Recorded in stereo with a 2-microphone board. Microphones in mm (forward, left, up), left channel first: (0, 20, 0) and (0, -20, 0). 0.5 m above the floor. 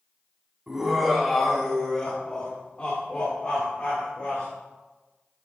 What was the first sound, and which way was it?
Laughter, 15° right (ahead or behind).